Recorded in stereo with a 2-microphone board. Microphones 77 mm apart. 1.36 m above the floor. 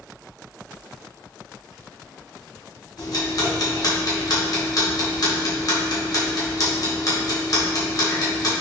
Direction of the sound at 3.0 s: 50° left (ahead or behind).